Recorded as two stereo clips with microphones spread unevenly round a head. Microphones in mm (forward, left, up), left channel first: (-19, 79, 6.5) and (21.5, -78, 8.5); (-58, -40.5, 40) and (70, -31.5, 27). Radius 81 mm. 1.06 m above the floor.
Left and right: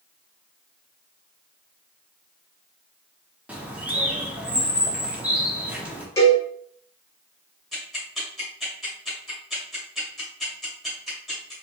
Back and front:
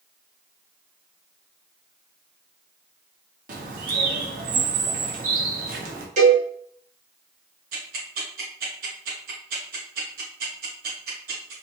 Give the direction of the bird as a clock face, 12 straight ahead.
12 o'clock.